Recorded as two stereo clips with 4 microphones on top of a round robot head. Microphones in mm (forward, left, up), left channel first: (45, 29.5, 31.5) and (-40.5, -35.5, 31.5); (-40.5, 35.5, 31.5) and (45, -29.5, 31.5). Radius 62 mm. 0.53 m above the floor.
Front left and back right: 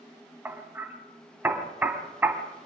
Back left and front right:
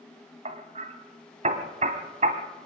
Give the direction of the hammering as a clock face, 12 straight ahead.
2 o'clock.